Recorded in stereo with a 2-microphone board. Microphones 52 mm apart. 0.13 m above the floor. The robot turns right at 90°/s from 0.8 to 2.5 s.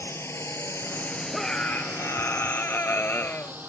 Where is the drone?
55° left (ahead or behind); by 3.7 s 35° right (ahead or behind).